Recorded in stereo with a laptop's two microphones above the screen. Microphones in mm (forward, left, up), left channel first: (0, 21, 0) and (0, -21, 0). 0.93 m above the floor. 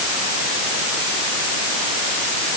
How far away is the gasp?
No gasp in this recording.